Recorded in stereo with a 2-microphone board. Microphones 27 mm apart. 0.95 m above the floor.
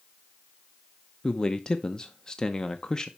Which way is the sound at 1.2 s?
30° left (ahead or behind).